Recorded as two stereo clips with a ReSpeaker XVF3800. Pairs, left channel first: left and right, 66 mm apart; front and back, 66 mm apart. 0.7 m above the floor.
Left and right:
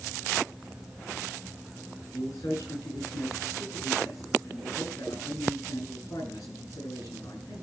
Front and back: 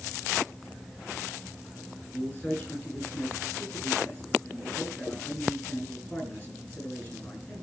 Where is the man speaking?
55° left, 9 m.